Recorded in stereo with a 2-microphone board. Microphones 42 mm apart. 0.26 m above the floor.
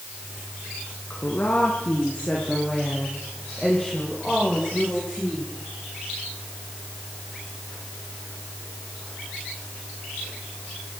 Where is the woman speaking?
40° left (ahead or behind), 3 m; by 5.5 s centre (ahead or behind), 9 m.